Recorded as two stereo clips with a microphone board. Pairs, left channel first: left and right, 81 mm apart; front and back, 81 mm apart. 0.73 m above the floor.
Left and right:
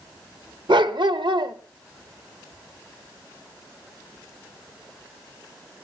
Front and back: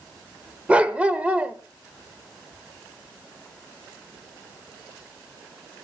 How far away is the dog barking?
About 0.9 m.